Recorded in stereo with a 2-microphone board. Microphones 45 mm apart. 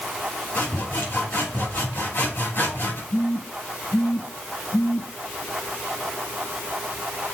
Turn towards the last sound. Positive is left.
turn(degrees=80)